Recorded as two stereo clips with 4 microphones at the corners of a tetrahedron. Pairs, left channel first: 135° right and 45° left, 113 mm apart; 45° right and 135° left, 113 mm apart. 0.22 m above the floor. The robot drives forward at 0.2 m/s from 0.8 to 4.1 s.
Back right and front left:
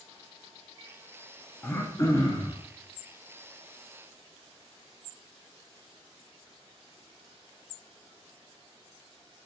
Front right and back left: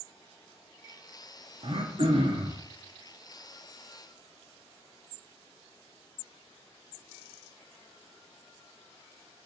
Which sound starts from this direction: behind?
Throat clearing, at 1.6 s.